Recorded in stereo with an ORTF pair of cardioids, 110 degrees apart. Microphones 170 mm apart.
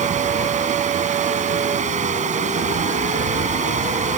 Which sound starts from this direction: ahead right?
Running water, at 0.0 s.